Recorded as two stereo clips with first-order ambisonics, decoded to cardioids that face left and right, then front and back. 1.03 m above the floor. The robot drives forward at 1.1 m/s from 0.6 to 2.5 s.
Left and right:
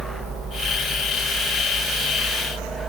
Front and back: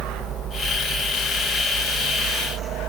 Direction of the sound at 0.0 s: 150° right.